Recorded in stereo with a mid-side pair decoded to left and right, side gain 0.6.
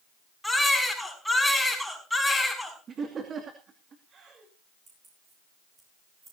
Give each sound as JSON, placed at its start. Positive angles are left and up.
{"t": 0.4, "sound": "a baby crying", "azimuth_deg": 0, "distance_m": 6.0}
{"t": 2.9, "sound": "laughter", "azimuth_deg": -40, "distance_m": 2.5}
{"t": 4.9, "sound": "keys jangling", "azimuth_deg": -30, "distance_m": 10.0}